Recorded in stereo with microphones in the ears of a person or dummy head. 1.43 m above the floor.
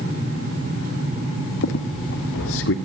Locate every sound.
1.6 s a squeak: 65° left (ahead or behind), 1.8 m